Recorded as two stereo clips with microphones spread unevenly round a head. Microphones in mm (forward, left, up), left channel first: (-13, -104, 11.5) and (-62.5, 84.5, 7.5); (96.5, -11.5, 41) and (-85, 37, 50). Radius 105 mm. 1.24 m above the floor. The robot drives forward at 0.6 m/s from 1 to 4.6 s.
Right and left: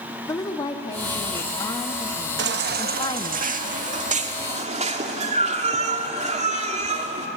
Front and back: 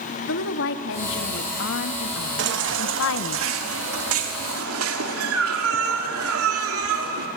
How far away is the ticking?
No ticking in this recording.